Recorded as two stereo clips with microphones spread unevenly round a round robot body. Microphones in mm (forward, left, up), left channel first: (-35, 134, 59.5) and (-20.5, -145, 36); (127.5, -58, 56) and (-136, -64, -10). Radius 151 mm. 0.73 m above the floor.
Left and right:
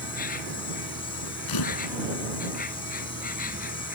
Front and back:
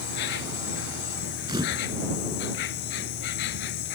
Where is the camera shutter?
105° left.